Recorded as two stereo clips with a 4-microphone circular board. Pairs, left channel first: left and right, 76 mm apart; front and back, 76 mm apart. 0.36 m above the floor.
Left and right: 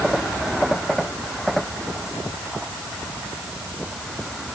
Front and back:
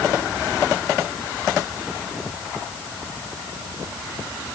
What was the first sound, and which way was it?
Only background noise.